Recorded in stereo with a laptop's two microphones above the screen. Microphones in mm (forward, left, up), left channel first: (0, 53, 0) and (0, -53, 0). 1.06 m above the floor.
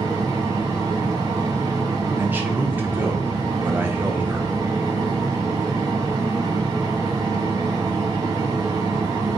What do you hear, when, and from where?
0.0 s a fan: 35° right (ahead or behind), 1.1 m
2.2 s a man speaking: 20° right (ahead or behind), 0.6 m